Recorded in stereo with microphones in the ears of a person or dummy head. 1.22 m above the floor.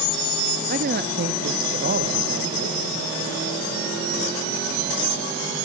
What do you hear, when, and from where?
0.7 s a man speaking: 45° right (ahead or behind), 0.8 m; by 3.1 s 55° right (ahead or behind), 1.9 m